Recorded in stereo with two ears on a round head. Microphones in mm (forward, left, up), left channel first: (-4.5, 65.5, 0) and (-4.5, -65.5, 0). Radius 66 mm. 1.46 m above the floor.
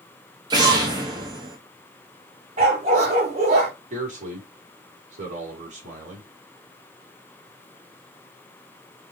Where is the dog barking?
50° right (ahead or behind), 3 m.